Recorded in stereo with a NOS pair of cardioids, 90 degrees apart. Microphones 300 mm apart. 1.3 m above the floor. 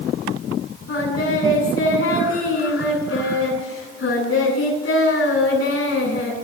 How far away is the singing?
About 8.5 m.